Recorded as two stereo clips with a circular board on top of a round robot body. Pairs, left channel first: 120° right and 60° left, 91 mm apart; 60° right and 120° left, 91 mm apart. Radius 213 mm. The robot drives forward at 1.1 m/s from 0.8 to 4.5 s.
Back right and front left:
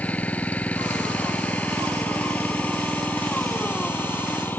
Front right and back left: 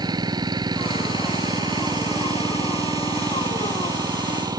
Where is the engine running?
165° left; by 4.6 s 170° left.